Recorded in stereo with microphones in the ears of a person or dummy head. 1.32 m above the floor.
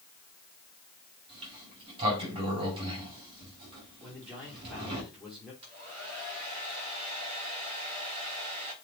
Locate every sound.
1.3 s a sliding door: 30° right (ahead or behind), 4 m
4.0 s a man speaking: centre (ahead or behind), 4.5 m
5.6 s a hair dryer: 30° right (ahead or behind), 5 m